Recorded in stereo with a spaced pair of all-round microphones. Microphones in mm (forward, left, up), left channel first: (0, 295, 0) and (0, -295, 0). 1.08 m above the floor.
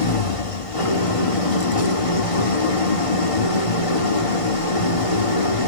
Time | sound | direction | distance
0.0 | an engine running | 65° left (ahead or behind) | 2 m